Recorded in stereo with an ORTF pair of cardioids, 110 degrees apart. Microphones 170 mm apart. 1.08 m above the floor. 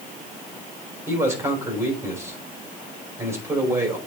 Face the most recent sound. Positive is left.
turn(degrees=-15)